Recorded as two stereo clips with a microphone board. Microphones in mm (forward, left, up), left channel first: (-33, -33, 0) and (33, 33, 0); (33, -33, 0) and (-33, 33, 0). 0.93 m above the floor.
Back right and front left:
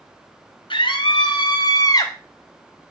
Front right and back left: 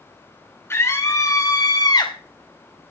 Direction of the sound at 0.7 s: 105° right.